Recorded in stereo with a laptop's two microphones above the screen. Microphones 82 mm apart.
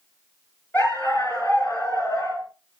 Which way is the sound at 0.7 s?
25° left (ahead or behind).